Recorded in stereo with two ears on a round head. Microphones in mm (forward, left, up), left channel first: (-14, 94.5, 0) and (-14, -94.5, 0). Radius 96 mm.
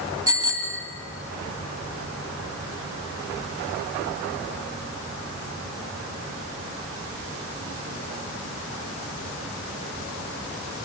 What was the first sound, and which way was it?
A bicycle bell, 20° right (ahead or behind).